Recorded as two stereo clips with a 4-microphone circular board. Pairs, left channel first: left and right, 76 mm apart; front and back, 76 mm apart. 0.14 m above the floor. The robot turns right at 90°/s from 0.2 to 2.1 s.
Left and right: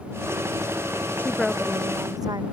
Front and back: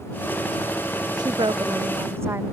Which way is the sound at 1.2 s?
150° left.